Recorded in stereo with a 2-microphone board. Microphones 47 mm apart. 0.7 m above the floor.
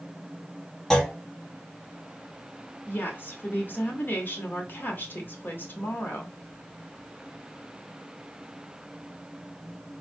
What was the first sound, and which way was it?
A clunk, 15° left (ahead or behind).